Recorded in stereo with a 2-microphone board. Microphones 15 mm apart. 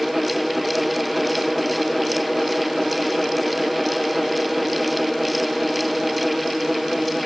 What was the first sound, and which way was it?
Only background noise.